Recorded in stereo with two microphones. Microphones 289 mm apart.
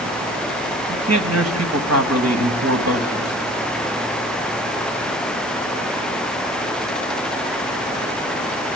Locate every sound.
0.9 s a man speaking: 60° right (ahead or behind), 3 m